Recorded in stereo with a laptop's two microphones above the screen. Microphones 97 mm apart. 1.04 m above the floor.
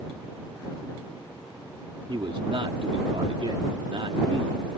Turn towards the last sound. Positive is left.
turn(degrees=-65)  # may be behind; listen again after turning